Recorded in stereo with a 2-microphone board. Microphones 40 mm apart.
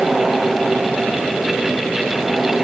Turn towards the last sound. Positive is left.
No sound to turn to.